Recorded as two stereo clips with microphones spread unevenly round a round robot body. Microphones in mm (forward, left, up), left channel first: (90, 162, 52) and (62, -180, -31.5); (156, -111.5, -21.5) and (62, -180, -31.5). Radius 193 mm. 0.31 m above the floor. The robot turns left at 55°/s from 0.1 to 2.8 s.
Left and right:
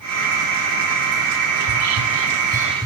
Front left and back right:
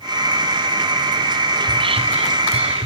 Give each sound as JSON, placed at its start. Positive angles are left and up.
{"t": 1.6, "sound": "whispering", "azimuth_deg": -100, "distance_m": 2.0}